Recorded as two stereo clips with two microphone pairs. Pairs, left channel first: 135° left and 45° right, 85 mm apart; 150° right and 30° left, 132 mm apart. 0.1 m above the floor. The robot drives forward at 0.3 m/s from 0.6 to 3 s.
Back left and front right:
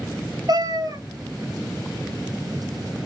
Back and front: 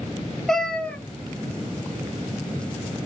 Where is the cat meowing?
60° right, 0.7 m; by 1.0 s 70° right, 0.6 m.